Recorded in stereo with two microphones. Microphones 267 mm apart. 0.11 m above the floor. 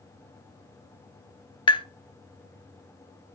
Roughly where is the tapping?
Centre.